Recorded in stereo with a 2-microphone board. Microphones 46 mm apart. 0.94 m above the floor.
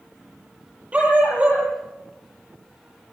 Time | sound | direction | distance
0.9 | a dog barking | 25° right (ahead or behind) | 8.5 m